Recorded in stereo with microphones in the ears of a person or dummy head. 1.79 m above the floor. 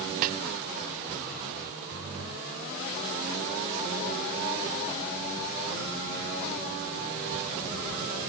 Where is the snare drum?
45° right (ahead or behind), 0.7 m.